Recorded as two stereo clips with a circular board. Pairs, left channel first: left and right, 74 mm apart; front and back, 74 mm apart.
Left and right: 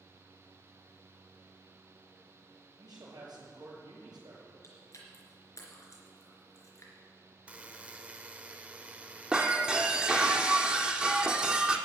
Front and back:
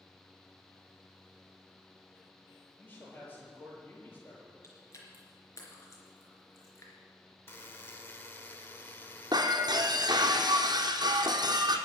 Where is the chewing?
45° left, 3.5 m.